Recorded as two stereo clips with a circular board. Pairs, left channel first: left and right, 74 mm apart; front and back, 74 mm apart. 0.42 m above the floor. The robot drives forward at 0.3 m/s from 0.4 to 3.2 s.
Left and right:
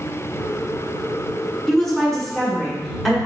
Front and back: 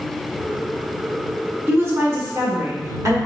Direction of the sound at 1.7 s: 170° left.